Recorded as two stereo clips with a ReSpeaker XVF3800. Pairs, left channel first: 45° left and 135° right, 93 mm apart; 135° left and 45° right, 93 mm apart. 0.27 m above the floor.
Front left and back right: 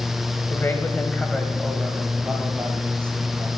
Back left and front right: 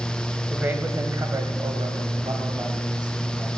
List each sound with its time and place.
0.5 s a man speaking: 15° left, 1.3 m; by 3.6 s 75° right, 2.5 m